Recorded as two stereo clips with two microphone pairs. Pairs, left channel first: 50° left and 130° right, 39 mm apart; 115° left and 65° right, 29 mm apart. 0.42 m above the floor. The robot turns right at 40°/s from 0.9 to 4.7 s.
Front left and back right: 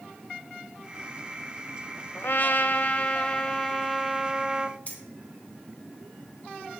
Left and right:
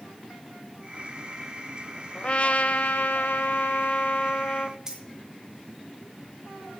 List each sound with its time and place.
2.1 s a trumpet: 60° left, 0.7 m; by 4.8 s 165° left, 0.7 m
4.9 s keys jangling: straight ahead, 3 m